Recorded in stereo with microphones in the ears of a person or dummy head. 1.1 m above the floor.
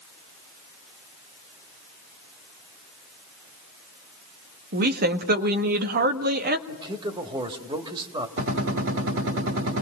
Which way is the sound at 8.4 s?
65° right (ahead or behind).